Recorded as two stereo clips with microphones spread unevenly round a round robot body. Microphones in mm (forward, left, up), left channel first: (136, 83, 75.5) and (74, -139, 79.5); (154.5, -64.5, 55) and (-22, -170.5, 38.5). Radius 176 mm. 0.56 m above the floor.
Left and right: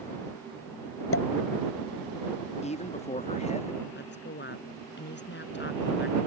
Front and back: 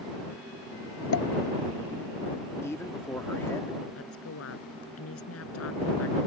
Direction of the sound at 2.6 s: 110° left.